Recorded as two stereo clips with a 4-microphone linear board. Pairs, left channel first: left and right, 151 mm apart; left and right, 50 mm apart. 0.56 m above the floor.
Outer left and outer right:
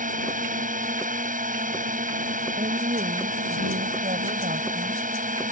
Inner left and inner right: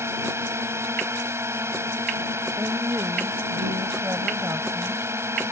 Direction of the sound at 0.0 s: 60° right (ahead or behind).